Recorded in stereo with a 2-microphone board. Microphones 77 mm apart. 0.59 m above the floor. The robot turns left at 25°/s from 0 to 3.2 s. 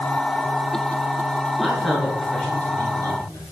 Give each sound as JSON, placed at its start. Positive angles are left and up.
{"t": 1.6, "sound": "a man speaking", "side_deg": -5, "distance_m": 8.0}